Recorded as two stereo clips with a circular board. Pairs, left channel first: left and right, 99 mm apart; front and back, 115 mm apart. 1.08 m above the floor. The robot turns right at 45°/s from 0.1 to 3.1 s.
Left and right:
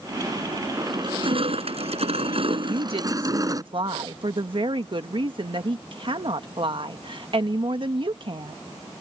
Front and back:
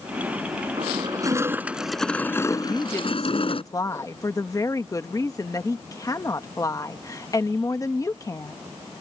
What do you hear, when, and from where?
0.8 s crushing: 140° right; by 3.6 s 35° right
2.6 s a woman speaking: 80° right; by 8.5 s 60° right